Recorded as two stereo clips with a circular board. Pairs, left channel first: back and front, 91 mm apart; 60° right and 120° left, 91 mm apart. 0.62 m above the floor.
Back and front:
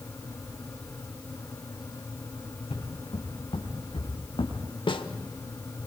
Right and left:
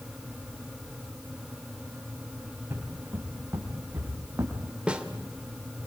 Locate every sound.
2.5 s footsteps: 175° right, 6.5 m; by 4.6 s straight behind, 4.5 m
4.9 s a snare drum: 165° right, 1.3 m